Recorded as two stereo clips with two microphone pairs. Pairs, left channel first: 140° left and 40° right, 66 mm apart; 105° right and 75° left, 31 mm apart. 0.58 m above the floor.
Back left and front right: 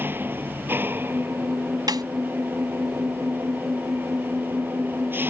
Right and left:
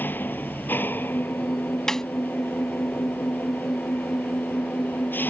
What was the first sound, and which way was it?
An engine running, 100° right.